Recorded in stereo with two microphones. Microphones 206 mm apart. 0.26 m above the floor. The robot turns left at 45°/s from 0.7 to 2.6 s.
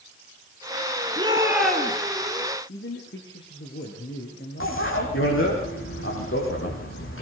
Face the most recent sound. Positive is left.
turn(degrees=85)